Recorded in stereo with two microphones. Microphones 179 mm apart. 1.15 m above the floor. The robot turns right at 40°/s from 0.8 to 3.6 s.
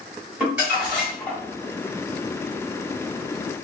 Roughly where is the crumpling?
Centre.